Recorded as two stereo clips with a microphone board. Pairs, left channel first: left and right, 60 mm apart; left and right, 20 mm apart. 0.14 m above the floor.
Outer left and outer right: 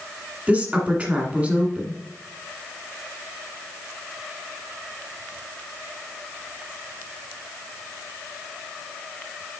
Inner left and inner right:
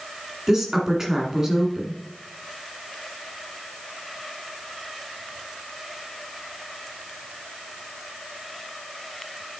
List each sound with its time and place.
0.5 s a woman speaking: 25° right (ahead or behind), 1.5 m